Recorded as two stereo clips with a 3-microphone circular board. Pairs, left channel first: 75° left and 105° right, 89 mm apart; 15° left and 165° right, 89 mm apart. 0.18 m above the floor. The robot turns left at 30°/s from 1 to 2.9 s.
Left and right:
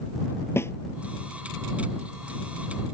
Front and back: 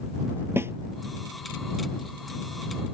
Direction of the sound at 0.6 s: 135° left.